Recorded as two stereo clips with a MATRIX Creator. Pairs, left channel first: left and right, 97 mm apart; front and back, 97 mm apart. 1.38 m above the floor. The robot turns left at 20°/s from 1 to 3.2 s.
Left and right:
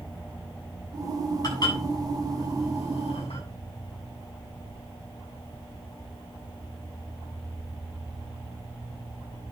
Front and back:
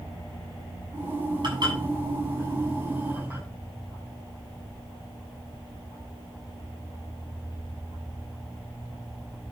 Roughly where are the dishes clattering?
Behind left.